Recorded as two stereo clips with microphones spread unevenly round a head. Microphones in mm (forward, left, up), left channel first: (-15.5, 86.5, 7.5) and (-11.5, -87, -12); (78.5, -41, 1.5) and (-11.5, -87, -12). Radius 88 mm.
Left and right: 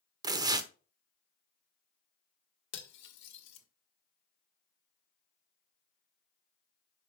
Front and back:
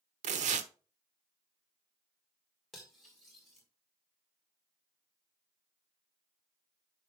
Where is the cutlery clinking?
115° left, 1.6 m.